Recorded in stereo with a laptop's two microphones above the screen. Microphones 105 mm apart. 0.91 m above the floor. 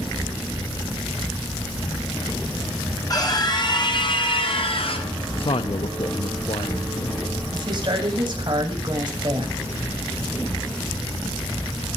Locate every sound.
3.1 s a scream: 35° left (ahead or behind), 4 m; by 5.1 s 70° left (ahead or behind), 4 m
5.4 s a man speaking: 60° left (ahead or behind), 0.8 m
7.5 s a woman speaking: 45° right (ahead or behind), 6 m